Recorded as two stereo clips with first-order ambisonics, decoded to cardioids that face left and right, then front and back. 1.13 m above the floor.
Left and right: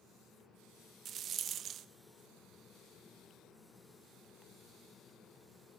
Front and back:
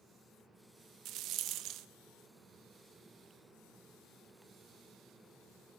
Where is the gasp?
I don't hear a gasp.